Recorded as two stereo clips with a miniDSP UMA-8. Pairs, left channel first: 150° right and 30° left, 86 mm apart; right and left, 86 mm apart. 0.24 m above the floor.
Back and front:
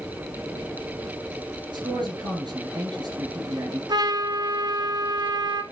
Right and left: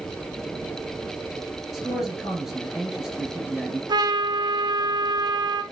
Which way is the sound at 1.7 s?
5° left.